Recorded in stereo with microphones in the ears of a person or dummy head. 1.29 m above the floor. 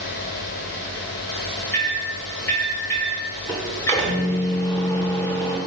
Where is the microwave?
15° left (ahead or behind), 0.7 m.